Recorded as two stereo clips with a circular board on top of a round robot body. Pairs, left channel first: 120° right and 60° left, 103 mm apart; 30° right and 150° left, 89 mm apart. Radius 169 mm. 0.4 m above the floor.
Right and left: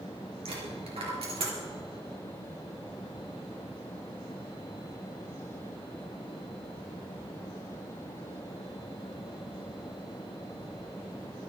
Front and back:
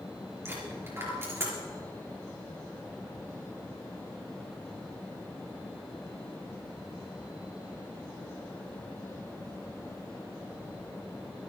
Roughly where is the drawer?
I don't hear a drawer.